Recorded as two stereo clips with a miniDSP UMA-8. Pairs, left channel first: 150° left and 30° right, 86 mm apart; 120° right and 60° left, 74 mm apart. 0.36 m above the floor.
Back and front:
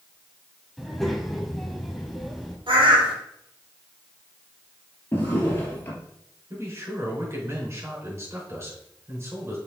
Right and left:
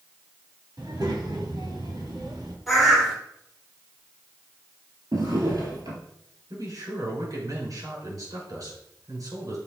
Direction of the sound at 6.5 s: 30° left.